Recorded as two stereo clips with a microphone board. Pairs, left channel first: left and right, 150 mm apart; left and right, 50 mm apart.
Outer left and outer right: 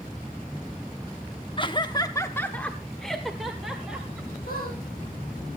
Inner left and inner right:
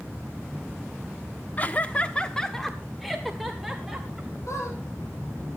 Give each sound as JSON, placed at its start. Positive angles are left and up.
{"t": 1.6, "sound": "laughter", "side_deg": 35, "distance_m": 0.8}
{"t": 4.5, "sound": "a squeak", "side_deg": 75, "distance_m": 5.5}